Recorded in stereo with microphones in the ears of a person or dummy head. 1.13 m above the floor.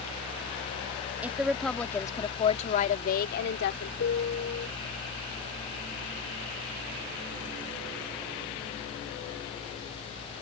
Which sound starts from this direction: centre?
A woman speaking, at 1.2 s.